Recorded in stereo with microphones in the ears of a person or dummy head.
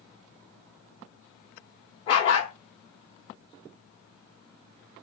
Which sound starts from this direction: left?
A dog barking, at 2.1 s.